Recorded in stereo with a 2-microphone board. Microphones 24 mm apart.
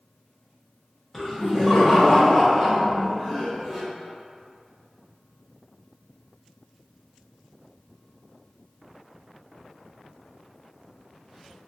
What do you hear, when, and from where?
1.1 s laughter: 10° left (ahead or behind), 0.9 m; by 3.8 s 15° left (ahead or behind), 1.4 m